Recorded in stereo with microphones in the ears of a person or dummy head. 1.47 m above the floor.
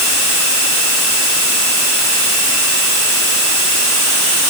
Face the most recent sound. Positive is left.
No sound to turn to.